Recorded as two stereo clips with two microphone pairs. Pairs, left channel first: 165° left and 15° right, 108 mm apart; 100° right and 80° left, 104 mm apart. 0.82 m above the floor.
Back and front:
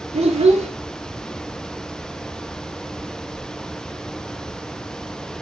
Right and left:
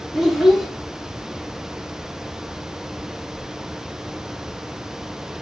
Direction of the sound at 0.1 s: 10° right.